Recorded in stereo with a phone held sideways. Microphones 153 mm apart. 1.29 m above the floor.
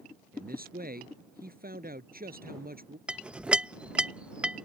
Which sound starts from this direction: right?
A man speaking, at 0.3 s.